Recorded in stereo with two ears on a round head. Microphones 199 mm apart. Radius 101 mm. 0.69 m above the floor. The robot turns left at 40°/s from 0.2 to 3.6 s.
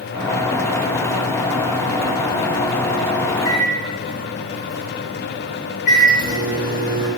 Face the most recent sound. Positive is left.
turn(degrees=40)  # may be behind; listen again after turning